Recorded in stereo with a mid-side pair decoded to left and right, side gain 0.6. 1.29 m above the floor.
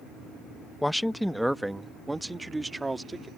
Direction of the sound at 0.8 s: 5° left.